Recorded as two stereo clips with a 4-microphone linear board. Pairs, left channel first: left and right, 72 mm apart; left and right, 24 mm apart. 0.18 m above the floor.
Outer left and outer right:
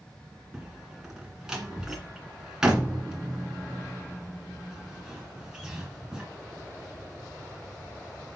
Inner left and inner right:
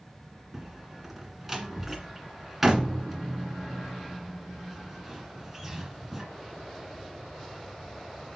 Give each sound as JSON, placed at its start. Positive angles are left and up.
{"t": 0.5, "sound": "a door slam", "side_deg": -10, "distance_m": 1.8}